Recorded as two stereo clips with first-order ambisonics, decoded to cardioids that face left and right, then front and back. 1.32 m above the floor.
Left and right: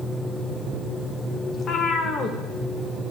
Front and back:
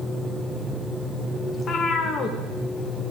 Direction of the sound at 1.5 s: 45° left.